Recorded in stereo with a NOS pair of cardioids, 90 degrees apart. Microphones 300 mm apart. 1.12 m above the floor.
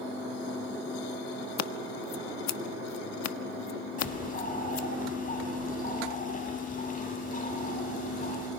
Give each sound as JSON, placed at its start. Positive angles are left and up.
{"t": 1.6, "sound": "scissors", "azimuth_deg": 65, "distance_m": 1.3}
{"t": 4.0, "sound": "a bird", "azimuth_deg": 30, "distance_m": 9.0}